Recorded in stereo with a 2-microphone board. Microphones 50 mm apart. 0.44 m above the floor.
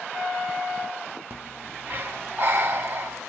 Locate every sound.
1.3 s breathing: 50° right (ahead or behind), 0.7 m